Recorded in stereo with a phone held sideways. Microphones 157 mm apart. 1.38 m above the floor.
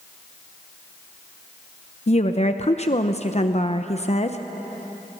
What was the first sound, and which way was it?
A woman speaking, 45° left (ahead or behind).